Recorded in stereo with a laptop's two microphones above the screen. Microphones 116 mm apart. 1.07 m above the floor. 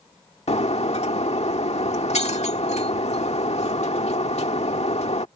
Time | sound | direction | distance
0.5 | breaking glass | 70° left (ahead or behind) | ?